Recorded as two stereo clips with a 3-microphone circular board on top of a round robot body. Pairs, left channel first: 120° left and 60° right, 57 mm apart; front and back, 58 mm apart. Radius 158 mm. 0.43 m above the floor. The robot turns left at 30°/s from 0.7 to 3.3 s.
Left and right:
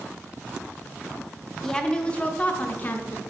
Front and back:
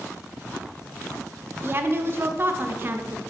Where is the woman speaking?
165° right, 0.9 m; by 3.2 s 145° left, 0.9 m.